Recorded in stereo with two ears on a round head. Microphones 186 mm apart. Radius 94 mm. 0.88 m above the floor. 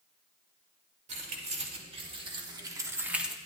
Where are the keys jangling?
35° right (ahead or behind), 1.8 m; by 3.4 s centre (ahead or behind), 0.7 m.